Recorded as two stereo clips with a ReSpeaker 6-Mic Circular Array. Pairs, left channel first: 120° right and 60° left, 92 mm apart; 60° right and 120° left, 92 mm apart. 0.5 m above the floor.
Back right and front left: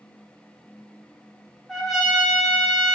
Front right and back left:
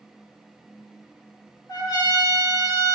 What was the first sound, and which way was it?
A trumpet, 30° right.